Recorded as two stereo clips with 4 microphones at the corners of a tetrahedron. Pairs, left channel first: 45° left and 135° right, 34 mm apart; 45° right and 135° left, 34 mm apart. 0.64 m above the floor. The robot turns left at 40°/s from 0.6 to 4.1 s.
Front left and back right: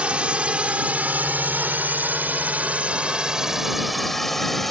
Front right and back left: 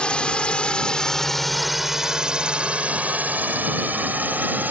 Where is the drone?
90° right; by 4.7 s 130° left.